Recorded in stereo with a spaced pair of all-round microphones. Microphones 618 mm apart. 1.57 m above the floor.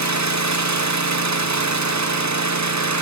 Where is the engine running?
30° right (ahead or behind), 0.8 m.